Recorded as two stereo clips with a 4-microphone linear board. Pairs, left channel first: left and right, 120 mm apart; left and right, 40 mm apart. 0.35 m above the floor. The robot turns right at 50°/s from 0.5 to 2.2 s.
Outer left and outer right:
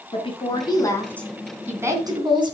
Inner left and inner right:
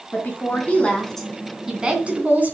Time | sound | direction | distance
0.1 | a woman speaking | 135° left | 3 m